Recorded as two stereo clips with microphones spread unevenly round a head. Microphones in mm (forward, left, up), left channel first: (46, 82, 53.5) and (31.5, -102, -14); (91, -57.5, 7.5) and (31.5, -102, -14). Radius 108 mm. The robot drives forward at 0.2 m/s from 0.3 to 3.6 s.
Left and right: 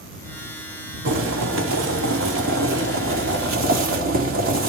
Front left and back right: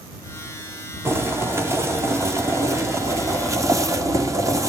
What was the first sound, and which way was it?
Boiling, 85° right.